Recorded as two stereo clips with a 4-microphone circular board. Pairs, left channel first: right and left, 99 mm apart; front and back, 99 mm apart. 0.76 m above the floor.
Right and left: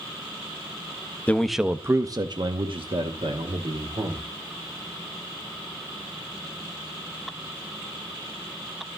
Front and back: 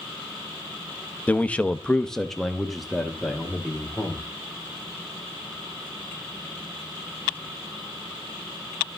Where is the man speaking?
45° right, 0.6 m; by 4.2 s 95° left, 2 m.